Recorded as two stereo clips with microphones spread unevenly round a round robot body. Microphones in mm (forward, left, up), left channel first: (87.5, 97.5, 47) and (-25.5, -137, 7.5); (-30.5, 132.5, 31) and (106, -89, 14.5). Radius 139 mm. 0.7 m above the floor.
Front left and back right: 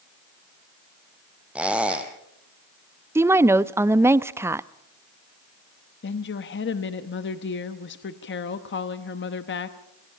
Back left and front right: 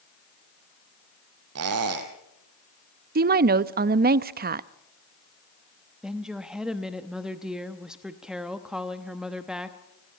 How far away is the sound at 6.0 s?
About 1.0 m.